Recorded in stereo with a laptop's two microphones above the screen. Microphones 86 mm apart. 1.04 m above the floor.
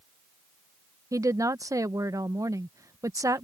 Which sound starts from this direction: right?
A woman speaking, at 1.1 s.